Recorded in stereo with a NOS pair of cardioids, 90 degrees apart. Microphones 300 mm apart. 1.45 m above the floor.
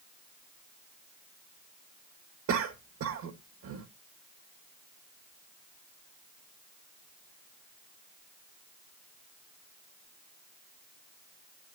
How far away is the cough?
About 1.8 m.